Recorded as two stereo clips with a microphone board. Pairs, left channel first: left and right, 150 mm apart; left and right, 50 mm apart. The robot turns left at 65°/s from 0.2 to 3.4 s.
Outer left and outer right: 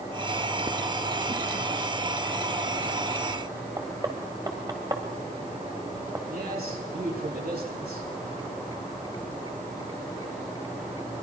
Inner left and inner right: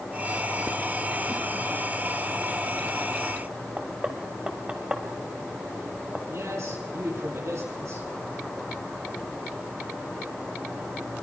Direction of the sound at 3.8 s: 25° right (ahead or behind).